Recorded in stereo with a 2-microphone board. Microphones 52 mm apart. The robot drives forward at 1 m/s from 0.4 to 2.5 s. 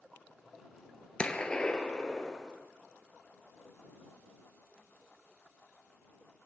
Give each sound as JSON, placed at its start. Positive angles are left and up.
{"t": 1.2, "sound": "a gunshot", "side_deg": 20, "distance_m": 1.2}